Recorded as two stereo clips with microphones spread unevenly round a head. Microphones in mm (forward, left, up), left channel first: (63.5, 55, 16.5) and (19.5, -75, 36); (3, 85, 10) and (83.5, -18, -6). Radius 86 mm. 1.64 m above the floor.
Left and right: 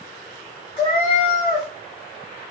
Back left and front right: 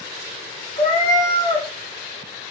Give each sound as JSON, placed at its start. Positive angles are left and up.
{"t": 0.8, "sound": "a cat meowing", "azimuth_deg": 135, "distance_m": 1.4}